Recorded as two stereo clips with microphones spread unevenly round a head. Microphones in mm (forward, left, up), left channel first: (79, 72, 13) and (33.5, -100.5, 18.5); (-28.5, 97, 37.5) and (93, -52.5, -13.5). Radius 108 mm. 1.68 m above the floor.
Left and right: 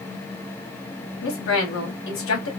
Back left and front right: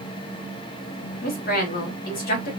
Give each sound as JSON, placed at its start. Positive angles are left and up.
{"t": 1.2, "sound": "a woman speaking", "azimuth_deg": 90, "distance_m": 1.6}